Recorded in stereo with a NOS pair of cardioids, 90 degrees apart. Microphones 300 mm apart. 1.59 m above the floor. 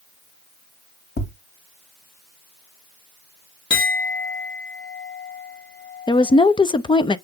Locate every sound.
1.2 s tapping: 35° left, 2 m
3.7 s a clink: 40° left, 2 m
6.1 s a woman speaking: 15° left, 0.8 m